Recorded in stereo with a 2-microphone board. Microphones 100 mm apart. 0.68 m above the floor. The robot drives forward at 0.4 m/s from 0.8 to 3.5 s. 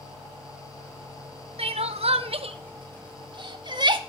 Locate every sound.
1.6 s crying: 80° right, 0.8 m; by 4.0 s 50° right (ahead or behind), 1.0 m